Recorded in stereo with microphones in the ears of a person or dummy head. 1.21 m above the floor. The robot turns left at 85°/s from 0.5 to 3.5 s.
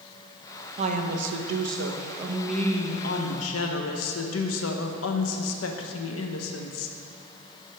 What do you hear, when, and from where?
0.8 s a woman speaking: 40° right, 0.8 m; by 7.0 s 90° left, 0.8 m